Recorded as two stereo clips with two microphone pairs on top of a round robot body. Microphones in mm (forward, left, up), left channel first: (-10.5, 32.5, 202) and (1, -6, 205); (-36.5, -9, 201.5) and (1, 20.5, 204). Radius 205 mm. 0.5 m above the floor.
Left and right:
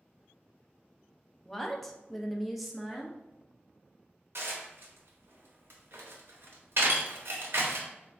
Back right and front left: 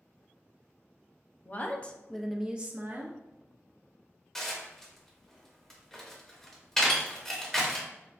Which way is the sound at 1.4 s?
175° right.